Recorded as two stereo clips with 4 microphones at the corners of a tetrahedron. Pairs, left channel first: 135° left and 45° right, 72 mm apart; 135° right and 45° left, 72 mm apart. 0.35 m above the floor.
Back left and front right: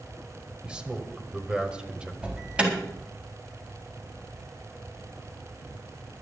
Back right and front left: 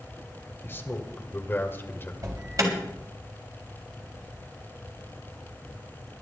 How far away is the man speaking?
About 1.6 m.